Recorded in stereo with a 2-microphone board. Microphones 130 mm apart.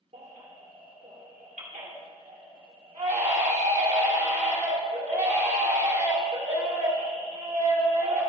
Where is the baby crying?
65° right (ahead or behind), 2.5 m.